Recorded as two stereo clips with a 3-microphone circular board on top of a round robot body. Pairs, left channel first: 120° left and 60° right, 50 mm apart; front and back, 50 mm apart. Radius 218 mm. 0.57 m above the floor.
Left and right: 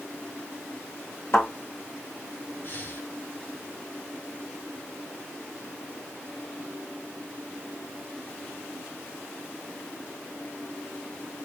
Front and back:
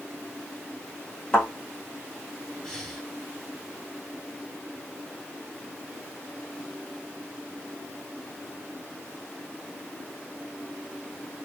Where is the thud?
80° left, 1.2 m.